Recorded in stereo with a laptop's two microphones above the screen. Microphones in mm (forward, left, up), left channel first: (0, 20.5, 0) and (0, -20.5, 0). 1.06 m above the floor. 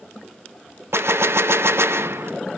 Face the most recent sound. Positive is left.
turn(degrees=-80)